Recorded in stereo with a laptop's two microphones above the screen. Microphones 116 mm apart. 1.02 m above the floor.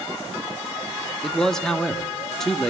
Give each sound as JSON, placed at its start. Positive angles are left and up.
{"t": 1.2, "sound": "a man speaking", "side_deg": 5, "distance_m": 2.0}